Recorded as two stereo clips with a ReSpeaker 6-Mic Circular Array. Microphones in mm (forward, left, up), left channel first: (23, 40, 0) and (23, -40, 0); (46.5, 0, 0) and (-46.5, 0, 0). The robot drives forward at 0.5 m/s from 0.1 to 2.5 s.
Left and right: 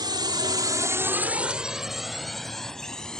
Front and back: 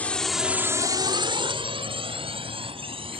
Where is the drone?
75° right; by 3.2 s 170° left.